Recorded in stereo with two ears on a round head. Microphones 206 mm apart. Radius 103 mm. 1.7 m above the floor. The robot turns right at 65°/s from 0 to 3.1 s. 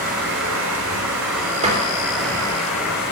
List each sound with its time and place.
0.0 s running water: 145° right, 3.5 m; by 3.1 s 55° left, 3.5 m
1.6 s a door slam: 30° right (ahead or behind), 3 m; by 2.6 s 75° right (ahead or behind), 3 m